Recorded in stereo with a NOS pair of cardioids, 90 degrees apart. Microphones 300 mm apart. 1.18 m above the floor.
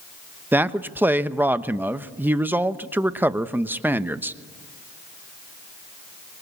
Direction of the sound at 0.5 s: 5° right.